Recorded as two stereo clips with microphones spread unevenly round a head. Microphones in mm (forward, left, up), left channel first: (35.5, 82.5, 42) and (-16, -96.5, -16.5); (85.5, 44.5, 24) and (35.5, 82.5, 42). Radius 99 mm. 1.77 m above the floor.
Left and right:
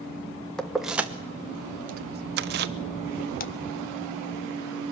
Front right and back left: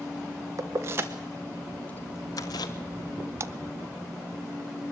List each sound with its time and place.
0.6 s keys jangling: 150° left, 1.2 m; by 2.7 s 65° right, 1.0 m
3.4 s a splash: 110° left, 0.7 m